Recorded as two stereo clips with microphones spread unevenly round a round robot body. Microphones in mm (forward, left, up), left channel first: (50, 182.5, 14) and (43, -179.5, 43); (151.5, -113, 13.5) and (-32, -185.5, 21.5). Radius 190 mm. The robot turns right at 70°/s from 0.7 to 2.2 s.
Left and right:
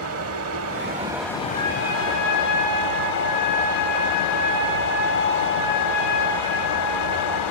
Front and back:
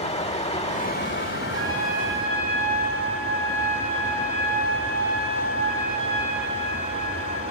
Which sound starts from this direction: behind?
A trumpet, at 1.5 s.